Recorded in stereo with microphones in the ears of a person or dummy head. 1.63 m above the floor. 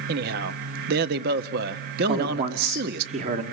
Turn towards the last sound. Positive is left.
turn(degrees=-50)  # may be behind; listen again after turning